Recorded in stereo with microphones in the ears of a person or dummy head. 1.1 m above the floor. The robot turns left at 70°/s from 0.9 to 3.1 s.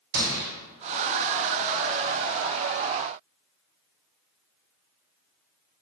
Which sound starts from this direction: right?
A gunshot, at 0.1 s.